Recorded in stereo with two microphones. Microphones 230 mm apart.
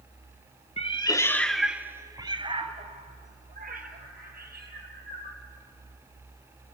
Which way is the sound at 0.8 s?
30° left (ahead or behind).